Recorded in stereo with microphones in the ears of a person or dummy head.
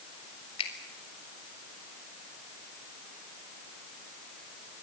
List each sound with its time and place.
0.6 s a finger snap: 35° left (ahead or behind), 3.5 m